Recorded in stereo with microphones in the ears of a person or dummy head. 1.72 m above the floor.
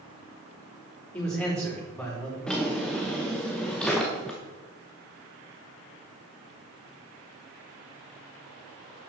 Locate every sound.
1.1 s a man speaking: 10° left (ahead or behind), 4.5 m
2.5 s a drawer: 5° left (ahead or behind), 0.9 m